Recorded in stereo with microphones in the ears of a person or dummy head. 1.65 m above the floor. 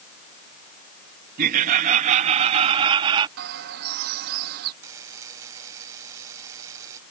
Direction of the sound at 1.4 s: 45° right (ahead or behind).